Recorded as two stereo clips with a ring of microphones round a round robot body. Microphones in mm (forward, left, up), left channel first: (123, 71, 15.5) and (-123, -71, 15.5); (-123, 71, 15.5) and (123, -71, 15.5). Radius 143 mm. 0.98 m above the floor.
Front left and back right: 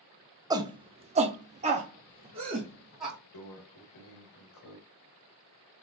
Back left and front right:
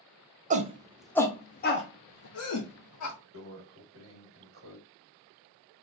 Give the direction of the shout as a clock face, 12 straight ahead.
3 o'clock.